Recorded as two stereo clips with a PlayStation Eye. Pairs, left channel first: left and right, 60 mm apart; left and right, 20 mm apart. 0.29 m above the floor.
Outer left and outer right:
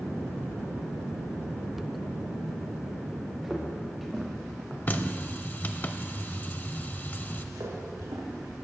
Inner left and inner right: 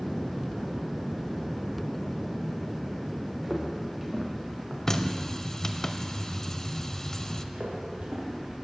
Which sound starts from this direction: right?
Footsteps, at 7.5 s.